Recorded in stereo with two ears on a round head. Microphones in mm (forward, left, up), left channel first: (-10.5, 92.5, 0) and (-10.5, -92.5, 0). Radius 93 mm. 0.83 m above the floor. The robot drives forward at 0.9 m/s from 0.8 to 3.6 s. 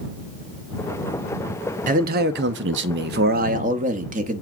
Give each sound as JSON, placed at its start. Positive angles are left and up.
{"t": 1.9, "sound": "a man speaking", "side_deg": -40, "distance_m": 1.2}